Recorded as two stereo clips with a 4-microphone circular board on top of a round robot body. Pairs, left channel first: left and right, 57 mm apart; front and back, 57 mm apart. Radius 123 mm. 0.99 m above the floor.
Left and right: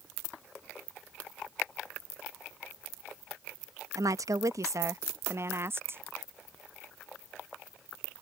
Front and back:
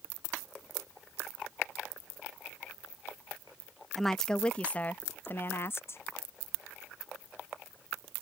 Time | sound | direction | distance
4.0 | a woman speaking | 85° right | ?